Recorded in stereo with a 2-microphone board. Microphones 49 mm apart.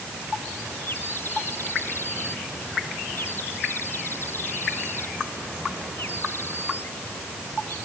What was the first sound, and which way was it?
A bird, 50° left (ahead or behind).